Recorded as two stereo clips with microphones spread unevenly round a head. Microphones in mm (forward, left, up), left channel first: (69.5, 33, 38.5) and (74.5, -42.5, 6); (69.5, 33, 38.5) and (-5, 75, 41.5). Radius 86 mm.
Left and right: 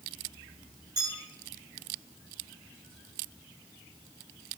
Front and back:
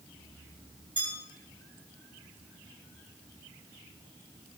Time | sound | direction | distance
1.0 | a bell | 155° right | 8.5 m